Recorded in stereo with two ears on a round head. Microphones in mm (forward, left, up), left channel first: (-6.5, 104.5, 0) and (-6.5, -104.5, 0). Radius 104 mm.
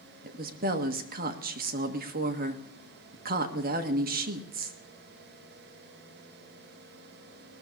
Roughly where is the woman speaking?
Right.